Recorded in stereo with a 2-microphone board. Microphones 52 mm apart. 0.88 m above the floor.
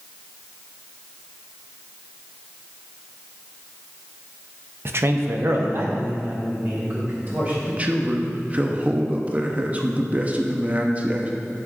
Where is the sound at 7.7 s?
25° right (ahead or behind), 0.8 m.